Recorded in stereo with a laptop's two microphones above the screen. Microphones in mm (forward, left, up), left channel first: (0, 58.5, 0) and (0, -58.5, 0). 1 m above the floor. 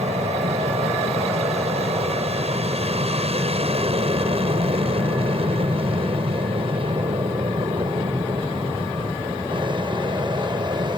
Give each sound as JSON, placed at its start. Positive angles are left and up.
{"t": 0.0, "sound": "an aircraft", "side_deg": -65}